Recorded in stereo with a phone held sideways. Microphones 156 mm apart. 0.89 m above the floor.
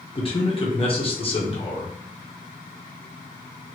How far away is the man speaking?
About 1.0 m.